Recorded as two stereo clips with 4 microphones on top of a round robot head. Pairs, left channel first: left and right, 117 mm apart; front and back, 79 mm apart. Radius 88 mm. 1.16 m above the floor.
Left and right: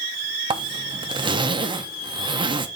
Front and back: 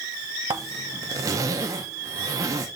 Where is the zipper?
135° right, 0.8 m.